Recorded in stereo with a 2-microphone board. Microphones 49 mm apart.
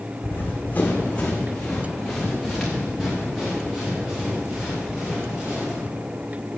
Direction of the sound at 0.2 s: 50° left (ahead or behind).